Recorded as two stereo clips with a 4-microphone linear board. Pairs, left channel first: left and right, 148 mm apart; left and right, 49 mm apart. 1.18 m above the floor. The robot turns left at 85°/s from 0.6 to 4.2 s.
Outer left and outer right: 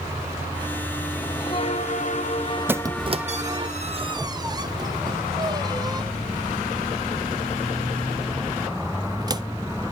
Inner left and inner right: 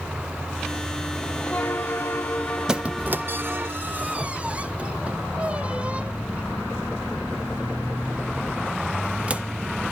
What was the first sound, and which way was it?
A bell, 165° left.